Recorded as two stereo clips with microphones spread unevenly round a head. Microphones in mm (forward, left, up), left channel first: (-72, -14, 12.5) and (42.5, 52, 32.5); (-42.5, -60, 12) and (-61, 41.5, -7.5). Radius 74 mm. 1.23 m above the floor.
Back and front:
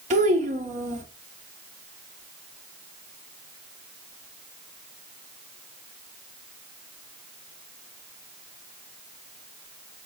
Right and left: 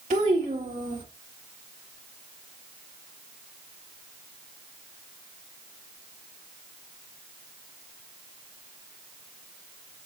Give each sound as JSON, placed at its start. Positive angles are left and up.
{"t": 0.1, "sound": "a child speaking", "azimuth_deg": 60, "distance_m": 3.0}